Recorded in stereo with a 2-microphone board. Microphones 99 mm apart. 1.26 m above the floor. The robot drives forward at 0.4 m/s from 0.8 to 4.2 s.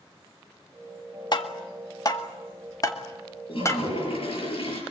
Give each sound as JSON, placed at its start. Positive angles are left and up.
{"t": 1.3, "sound": "tapping", "side_deg": 45, "distance_m": 1.8}
{"t": 3.5, "sound": "a toilet flushing", "side_deg": 60, "distance_m": 7.5}